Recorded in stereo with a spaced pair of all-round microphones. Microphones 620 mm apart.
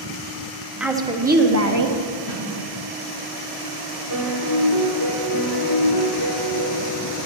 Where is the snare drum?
55° left (ahead or behind), 2 m.